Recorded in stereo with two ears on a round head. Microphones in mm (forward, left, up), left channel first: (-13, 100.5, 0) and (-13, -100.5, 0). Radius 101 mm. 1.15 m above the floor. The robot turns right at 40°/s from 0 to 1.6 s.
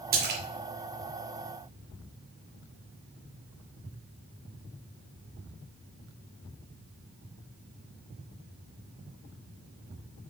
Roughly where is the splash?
Right.